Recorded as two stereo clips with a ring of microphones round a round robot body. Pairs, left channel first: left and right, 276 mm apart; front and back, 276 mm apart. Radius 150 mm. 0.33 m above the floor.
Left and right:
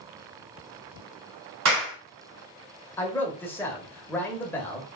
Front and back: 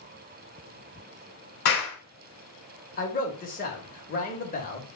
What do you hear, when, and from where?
1.6 s a clap: 55° right, 2.5 m
3.0 s a man speaking: 15° left, 1.0 m